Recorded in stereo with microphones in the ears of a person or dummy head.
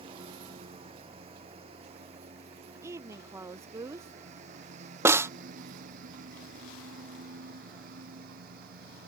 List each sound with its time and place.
0.0 s a lawn mower: 25° right (ahead or behind); by 9.1 s 50° right (ahead or behind)
2.8 s a woman speaking: 15° right (ahead or behind)
5.0 s a snare drum: 15° right (ahead or behind)